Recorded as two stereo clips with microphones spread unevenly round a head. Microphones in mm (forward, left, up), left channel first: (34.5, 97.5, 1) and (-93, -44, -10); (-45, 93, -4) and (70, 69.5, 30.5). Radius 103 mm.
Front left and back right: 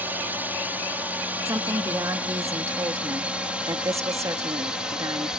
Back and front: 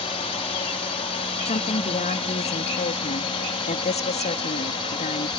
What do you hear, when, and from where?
0.0 s a drone: 150° left; by 5.4 s 145° left
1.4 s a woman speaking: 155° left